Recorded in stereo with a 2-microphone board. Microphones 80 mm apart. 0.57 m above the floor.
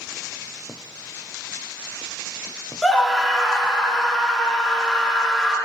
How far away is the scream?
About 0.8 m.